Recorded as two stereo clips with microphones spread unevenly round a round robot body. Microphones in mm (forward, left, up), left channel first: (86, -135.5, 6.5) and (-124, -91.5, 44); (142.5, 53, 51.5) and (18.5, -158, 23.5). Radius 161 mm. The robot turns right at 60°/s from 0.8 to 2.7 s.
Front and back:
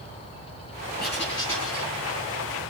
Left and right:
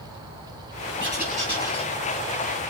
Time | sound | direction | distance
1.0 | writing | 55° right | 6.5 m